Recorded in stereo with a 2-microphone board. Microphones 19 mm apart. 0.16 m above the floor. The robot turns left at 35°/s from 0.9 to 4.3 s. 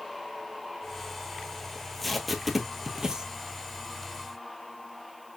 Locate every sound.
1.8 s tape being pulled: 15° left (ahead or behind), 0.8 m; by 3.3 s 40° right (ahead or behind), 0.8 m